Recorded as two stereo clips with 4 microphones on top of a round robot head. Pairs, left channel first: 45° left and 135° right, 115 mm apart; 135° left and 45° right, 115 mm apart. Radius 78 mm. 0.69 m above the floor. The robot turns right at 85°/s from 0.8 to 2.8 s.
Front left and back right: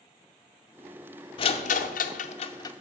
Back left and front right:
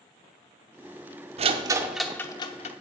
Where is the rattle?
5° right, 0.7 m; by 2.7 s 110° left, 0.7 m.